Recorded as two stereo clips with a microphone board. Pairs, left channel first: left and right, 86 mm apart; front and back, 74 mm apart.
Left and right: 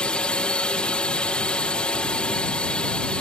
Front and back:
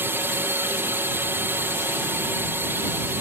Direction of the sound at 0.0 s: 160° left.